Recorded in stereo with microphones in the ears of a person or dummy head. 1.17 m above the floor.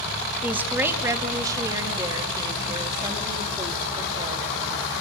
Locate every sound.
0.4 s a woman speaking: 15° right (ahead or behind), 1.3 m; by 4.8 s 30° right (ahead or behind), 3.5 m